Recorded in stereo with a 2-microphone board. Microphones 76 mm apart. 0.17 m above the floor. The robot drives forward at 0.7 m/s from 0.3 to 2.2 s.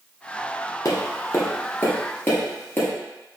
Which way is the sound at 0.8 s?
50° left (ahead or behind).